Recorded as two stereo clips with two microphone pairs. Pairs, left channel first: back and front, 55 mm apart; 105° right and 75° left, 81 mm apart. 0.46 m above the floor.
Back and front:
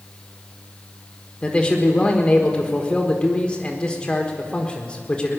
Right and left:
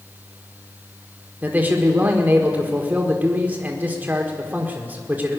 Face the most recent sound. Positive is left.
turn(degrees=125)